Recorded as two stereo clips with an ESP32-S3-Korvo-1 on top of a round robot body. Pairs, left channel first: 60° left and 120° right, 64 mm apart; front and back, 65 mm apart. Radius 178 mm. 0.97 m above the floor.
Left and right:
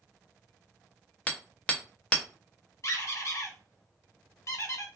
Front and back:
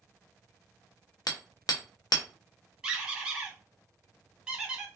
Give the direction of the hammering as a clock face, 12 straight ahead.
12 o'clock.